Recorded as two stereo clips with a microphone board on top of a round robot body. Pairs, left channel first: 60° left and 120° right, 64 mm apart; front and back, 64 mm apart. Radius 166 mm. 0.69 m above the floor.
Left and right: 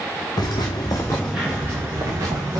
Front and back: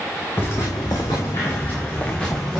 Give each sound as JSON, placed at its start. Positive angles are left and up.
{"t": 0.4, "sound": "footsteps", "azimuth_deg": 60, "distance_m": 0.8}